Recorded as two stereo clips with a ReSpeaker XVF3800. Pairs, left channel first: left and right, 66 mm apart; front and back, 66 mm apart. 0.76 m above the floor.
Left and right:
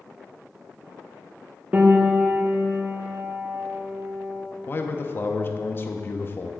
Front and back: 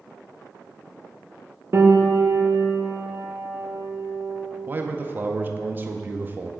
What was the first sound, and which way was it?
A piano, 150° right.